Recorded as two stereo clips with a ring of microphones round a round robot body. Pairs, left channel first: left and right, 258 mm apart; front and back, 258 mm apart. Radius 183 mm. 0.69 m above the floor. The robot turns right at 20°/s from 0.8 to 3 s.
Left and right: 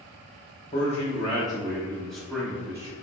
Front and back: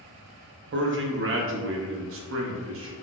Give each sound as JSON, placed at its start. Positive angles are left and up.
{"t": 0.7, "sound": "a man speaking", "azimuth_deg": 150, "distance_m": 0.7}